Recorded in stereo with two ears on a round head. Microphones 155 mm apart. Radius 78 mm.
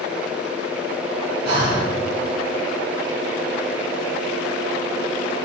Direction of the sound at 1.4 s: 65° right (ahead or behind).